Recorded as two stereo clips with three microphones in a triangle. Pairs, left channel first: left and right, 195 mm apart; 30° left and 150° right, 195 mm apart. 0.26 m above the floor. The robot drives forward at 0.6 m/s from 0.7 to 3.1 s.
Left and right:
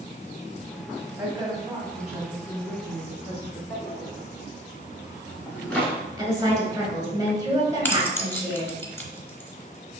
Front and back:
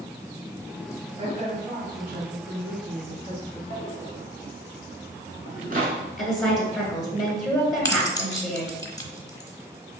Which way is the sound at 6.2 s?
60° right.